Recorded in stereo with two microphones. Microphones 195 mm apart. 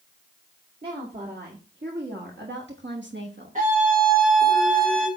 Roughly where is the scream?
Right.